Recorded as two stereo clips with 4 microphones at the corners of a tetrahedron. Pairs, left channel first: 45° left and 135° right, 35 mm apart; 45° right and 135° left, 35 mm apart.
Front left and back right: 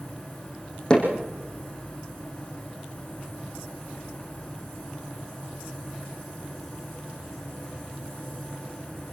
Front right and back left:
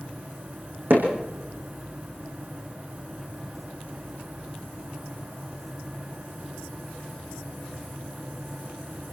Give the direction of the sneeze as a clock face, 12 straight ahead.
I don't hear a sneeze.